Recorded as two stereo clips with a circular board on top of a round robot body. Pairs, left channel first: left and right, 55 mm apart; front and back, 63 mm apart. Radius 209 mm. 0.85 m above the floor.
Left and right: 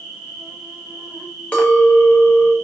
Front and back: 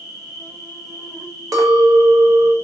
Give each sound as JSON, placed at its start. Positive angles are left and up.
{"t": 0.0, "sound": "an insect", "azimuth_deg": -135, "distance_m": 0.9}
{"t": 1.5, "sound": "a clink", "azimuth_deg": 160, "distance_m": 0.7}